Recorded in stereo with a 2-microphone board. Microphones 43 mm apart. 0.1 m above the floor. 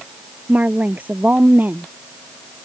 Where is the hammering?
No hammering in this recording.